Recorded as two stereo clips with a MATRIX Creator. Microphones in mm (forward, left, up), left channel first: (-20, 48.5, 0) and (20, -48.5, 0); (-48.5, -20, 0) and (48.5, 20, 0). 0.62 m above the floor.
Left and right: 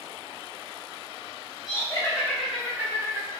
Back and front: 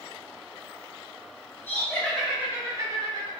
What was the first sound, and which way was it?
Laughter, 145° left.